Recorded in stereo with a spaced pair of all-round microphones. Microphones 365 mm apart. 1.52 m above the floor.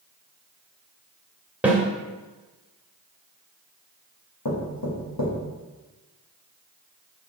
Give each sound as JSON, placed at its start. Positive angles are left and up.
{"t": 1.6, "sound": "a snare drum", "side_deg": -5, "distance_m": 1.6}
{"t": 4.5, "sound": "knocking", "side_deg": 70, "distance_m": 1.8}